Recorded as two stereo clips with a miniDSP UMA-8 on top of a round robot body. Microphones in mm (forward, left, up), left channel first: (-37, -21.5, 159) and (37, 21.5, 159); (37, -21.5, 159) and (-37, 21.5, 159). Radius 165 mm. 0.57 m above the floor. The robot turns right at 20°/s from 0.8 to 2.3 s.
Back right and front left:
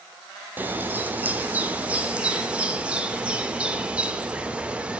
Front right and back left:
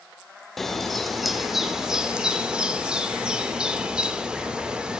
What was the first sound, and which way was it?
A bird, 55° left.